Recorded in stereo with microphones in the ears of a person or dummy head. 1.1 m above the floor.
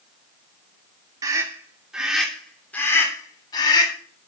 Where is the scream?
20° right (ahead or behind), 3 m; by 3.9 s 25° left (ahead or behind), 4 m.